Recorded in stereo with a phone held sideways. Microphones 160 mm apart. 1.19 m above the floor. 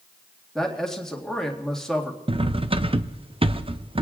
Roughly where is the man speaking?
Centre.